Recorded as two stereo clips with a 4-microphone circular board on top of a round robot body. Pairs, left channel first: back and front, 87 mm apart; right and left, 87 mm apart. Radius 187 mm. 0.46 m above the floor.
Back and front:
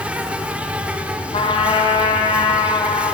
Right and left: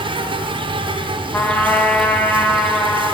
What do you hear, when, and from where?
0.0 s an insect: 75° left, 0.9 m
1.3 s a trumpet: 165° right, 1.0 m